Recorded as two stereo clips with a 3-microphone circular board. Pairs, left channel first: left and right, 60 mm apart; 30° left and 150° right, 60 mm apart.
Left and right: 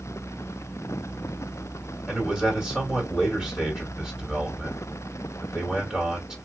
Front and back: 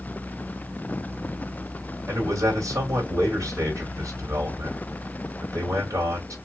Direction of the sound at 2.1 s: 175° right.